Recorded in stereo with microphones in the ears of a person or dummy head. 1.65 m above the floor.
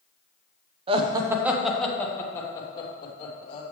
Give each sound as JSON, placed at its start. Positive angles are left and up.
{"t": 0.9, "sound": "laughter", "side_deg": -35, "distance_m": 1.0}